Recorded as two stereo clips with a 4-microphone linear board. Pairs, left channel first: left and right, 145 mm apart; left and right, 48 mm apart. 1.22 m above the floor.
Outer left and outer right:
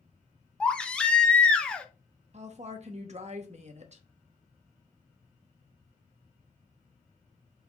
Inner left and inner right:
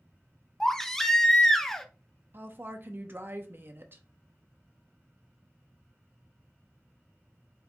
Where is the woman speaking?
50° right (ahead or behind), 0.7 m.